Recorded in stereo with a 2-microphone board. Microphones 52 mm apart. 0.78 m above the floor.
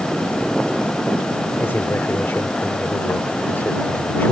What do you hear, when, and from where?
1.6 s a man speaking: 45° left (ahead or behind)